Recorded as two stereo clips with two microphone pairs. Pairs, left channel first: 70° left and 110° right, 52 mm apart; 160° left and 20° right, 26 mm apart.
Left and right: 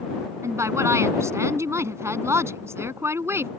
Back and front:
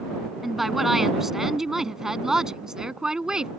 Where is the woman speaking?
105° right; by 3.5 s 80° right.